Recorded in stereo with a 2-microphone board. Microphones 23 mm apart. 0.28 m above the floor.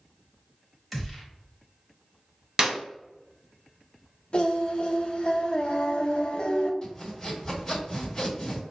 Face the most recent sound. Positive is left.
turn(degrees=30)  # may be behind; listen again after turning